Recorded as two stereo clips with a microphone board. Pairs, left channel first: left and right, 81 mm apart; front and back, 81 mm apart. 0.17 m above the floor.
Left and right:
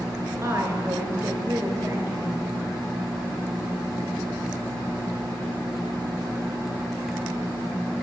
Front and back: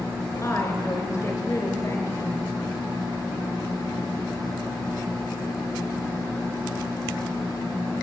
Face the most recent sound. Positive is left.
turn(degrees=-40)